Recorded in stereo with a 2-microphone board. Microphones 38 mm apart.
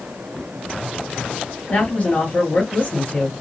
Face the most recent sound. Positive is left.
turn(degrees=45)  # may be behind; listen again after turning